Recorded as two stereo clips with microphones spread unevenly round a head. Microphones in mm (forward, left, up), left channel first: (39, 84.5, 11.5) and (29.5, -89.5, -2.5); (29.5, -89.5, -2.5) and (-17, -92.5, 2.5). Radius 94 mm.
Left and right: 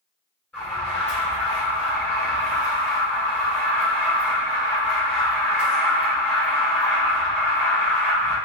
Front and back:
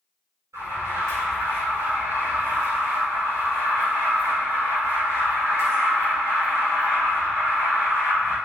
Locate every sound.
0.5 s an alarm: 170° left, 5 m